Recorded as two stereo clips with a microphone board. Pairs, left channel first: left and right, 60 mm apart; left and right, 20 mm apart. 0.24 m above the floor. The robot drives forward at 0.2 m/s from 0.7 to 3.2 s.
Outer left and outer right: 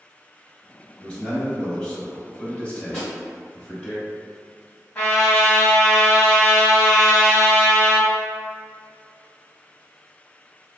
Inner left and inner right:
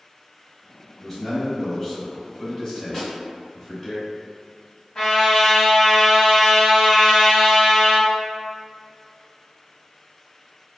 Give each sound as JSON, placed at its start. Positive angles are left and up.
{"t": 1.0, "sound": "a man speaking", "side_deg": 20, "distance_m": 1.1}
{"t": 2.9, "sound": "a snare drum", "side_deg": 5, "distance_m": 1.8}
{"t": 5.0, "sound": "a trumpet", "side_deg": 15, "distance_m": 1.2}